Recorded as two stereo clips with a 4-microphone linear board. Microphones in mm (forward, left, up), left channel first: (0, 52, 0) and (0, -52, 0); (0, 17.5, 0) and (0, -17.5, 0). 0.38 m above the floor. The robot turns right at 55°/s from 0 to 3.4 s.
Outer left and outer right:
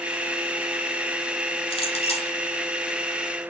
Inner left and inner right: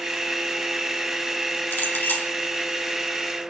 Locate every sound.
1.7 s a clink: 75° left, 2 m; by 2.4 s 110° left, 2 m